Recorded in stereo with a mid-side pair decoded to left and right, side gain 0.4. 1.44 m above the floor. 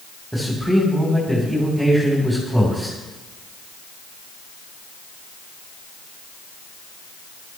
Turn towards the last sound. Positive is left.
turn(degrees=-5)